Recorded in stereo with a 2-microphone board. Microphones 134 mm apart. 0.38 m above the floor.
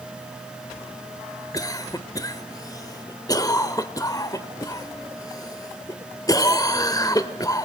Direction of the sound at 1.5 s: 25° left (ahead or behind).